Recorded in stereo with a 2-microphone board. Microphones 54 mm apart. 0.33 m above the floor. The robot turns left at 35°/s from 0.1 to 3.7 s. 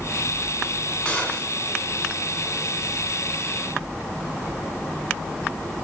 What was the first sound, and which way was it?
A gunshot, 15° left (ahead or behind).